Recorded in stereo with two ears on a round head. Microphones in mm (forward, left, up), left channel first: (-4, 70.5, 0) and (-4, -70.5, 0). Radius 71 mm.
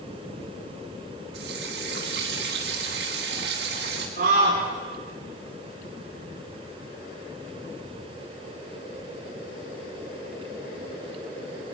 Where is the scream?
65° right (ahead or behind), 5 m.